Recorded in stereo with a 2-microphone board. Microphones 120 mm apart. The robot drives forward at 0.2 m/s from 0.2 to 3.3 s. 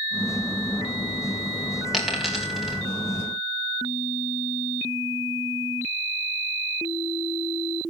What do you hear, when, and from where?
1.9 s a dropped coin: centre (ahead or behind), 3.5 m